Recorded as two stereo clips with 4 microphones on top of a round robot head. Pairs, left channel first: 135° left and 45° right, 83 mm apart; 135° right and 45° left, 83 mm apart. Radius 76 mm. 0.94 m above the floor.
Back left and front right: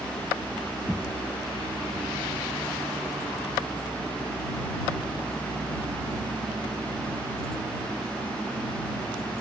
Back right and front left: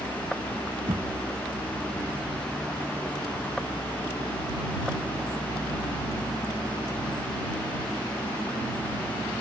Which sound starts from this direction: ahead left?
Knocking, at 0.9 s.